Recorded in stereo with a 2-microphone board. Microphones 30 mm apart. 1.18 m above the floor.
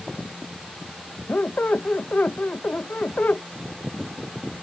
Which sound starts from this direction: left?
A squeak, at 1.3 s.